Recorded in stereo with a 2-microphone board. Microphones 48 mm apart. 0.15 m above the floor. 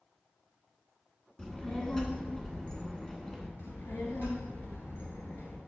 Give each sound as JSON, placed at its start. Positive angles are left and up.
{"t": 1.4, "sound": "a child speaking", "side_deg": 15, "distance_m": 0.8}
{"t": 3.6, "sound": "a child speaking", "side_deg": 55, "distance_m": 1.4}